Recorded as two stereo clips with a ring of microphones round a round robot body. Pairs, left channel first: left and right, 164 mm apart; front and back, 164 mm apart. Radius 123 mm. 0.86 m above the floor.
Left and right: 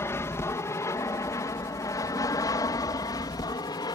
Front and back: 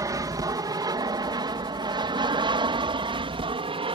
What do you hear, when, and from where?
0.0 s an aircraft: 145° left